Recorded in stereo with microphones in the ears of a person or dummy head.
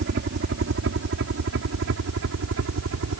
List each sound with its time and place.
0.0 s a helicopter: 60° right (ahead or behind); by 3.2 s 70° right (ahead or behind)